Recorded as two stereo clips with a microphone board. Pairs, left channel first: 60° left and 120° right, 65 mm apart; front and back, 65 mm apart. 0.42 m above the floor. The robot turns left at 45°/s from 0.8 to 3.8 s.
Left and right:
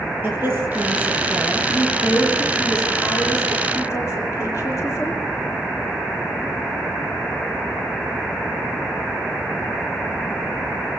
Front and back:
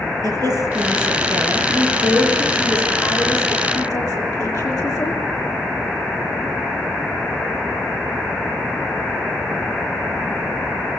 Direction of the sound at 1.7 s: 115° left.